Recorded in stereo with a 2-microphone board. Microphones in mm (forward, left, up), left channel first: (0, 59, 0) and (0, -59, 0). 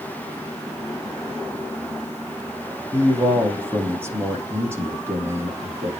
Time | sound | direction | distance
2.9 | a man speaking | 20° right (ahead or behind) | 5 m